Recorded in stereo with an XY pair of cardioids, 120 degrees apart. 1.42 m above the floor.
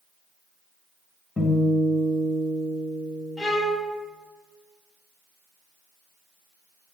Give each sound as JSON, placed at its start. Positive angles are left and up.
{"t": 1.4, "sound": "a guitar", "azimuth_deg": 25, "distance_m": 1.5}
{"t": 3.4, "sound": "a violin", "azimuth_deg": 30, "distance_m": 1.5}